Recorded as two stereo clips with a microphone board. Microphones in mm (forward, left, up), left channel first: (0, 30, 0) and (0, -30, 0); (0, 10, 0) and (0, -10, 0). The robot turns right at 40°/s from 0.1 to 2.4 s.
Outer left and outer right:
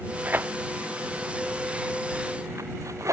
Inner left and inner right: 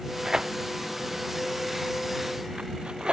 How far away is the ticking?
No ticking in this recording.